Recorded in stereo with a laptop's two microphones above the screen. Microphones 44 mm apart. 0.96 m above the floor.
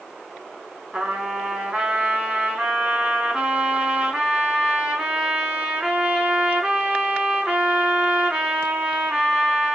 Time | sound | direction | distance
0.9 | a trumpet | 25° right (ahead or behind) | 1.1 m